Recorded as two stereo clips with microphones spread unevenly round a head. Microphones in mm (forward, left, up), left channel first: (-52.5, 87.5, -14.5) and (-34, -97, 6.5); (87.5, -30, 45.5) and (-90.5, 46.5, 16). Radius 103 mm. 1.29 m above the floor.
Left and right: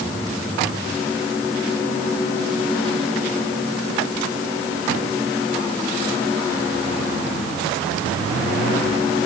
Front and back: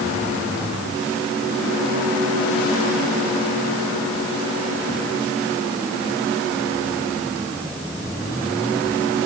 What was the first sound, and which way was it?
Only background noise.